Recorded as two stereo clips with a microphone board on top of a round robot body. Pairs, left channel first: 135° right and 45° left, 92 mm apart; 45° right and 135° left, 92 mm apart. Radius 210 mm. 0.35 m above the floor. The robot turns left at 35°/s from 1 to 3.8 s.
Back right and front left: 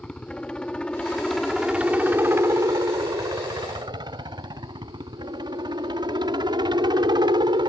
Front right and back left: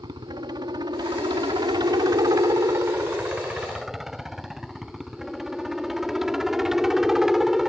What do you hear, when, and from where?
0.0 s a helicopter: 150° left; by 7.7 s 50° left